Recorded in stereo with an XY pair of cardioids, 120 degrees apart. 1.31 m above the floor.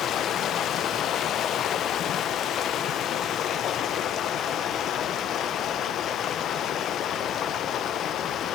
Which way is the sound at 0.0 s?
55° left.